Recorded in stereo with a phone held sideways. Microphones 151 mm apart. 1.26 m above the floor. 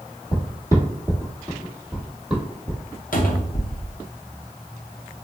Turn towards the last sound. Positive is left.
turn(degrees=65)  # may be behind; listen again after turning